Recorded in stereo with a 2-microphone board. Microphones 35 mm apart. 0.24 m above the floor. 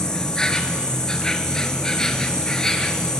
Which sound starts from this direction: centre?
An insect, at 0.0 s.